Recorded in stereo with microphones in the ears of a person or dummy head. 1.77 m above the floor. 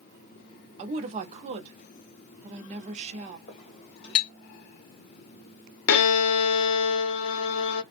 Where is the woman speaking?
35° right (ahead or behind), 0.7 m.